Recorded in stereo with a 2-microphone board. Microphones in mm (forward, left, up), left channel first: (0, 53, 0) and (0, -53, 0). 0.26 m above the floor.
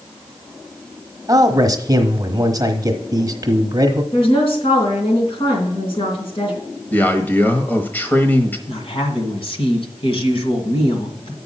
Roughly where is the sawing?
I don't hear sawing.